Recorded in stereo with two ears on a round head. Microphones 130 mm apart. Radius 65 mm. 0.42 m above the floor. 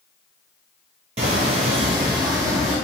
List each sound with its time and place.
1.2 s footsteps: 45° right (ahead or behind), 0.5 m; by 2.8 s 20° right (ahead or behind), 1.1 m